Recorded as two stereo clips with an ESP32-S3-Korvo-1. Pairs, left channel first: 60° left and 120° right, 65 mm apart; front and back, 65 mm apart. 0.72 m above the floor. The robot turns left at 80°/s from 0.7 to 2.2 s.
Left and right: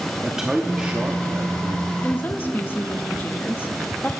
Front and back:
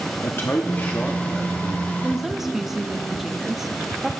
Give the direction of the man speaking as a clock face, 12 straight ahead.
1 o'clock.